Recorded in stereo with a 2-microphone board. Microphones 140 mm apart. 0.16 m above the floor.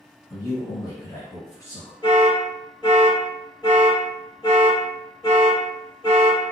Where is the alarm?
30° left (ahead or behind), 1.7 m.